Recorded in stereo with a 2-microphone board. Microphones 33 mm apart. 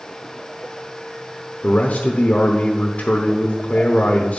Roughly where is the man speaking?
Left.